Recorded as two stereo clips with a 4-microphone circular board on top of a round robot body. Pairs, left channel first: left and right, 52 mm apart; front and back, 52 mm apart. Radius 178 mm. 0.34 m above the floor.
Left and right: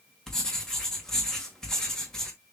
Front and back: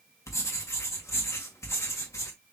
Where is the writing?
10° left, 2.0 m.